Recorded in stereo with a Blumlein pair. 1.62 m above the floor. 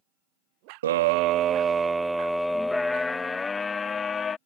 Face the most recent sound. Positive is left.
turn(degrees=20)